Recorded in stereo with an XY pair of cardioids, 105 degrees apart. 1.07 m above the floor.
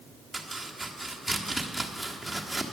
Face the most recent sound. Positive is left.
turn(degrees=-5)